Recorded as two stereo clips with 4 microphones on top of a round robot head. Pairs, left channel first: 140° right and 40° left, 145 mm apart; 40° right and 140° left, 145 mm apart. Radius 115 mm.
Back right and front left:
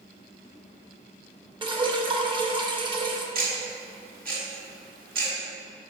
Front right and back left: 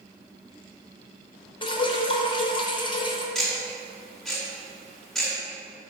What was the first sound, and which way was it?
Dripping, straight ahead.